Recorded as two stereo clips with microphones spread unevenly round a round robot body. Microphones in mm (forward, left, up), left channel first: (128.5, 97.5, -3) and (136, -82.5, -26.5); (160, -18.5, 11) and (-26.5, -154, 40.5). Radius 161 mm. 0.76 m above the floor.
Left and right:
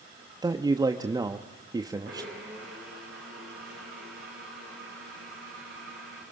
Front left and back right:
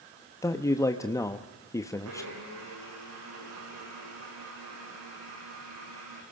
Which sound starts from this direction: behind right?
A blender, at 2.0 s.